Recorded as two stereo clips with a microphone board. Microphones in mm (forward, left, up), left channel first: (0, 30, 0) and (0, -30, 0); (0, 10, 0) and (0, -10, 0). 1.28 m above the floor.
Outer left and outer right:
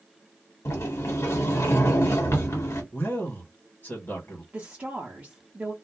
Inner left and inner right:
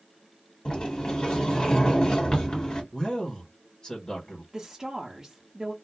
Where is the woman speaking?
30° right (ahead or behind), 0.7 m.